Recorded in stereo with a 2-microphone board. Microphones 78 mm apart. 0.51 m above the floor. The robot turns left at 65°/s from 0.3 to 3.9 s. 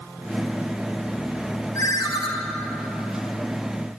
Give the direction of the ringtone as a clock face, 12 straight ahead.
8 o'clock.